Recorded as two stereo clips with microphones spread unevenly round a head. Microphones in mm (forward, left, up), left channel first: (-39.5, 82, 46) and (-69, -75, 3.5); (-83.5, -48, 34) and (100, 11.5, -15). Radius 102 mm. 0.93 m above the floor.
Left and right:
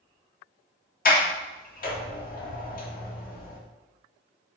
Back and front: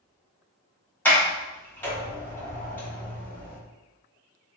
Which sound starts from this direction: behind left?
A sliding door, at 1.1 s.